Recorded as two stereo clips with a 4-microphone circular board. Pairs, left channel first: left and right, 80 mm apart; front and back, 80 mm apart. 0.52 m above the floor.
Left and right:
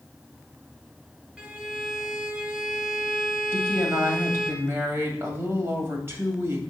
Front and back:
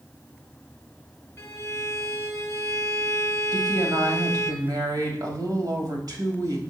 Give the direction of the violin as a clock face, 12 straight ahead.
1 o'clock.